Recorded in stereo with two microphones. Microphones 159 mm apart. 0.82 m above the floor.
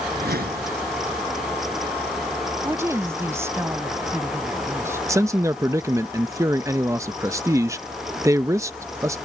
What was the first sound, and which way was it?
A whoosh, 70° right (ahead or behind).